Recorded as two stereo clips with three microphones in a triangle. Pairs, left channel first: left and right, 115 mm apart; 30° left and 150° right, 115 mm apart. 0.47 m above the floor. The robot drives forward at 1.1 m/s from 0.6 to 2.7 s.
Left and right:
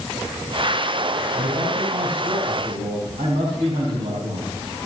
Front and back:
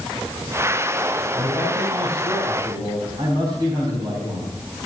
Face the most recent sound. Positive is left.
turn(degrees=-95)